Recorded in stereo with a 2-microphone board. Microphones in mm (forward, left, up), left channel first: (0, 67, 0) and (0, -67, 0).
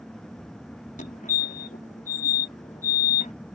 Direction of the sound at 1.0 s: 75° left (ahead or behind).